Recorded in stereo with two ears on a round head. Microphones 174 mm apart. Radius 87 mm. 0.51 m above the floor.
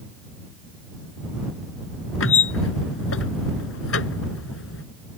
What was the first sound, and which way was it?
A squeak, 80° left.